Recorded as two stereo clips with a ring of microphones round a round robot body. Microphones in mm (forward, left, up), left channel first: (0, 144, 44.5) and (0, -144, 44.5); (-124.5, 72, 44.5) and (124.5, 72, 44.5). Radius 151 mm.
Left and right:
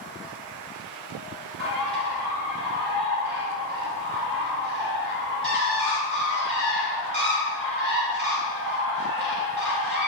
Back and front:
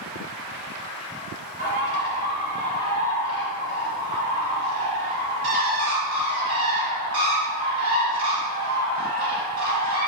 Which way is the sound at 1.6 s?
35° right.